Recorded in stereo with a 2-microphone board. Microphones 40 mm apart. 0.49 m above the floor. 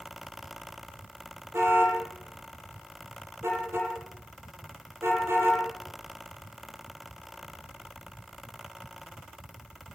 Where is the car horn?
85° right, 7.5 m.